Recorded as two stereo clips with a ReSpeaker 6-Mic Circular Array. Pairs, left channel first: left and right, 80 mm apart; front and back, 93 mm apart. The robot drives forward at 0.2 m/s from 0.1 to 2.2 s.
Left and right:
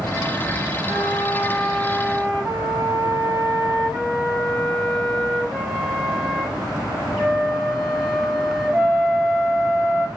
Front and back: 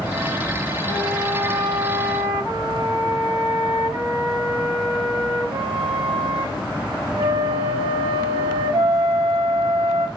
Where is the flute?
Straight behind, 2.5 m.